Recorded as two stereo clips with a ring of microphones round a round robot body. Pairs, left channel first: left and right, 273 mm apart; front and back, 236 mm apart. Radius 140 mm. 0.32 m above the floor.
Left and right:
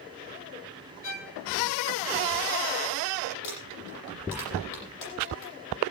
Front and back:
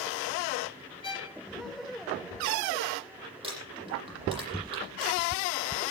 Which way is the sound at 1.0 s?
65° left.